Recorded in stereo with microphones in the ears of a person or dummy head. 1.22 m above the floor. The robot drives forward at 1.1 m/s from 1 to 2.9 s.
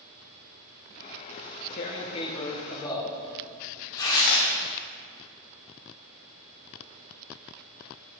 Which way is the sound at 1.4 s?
40° left (ahead or behind).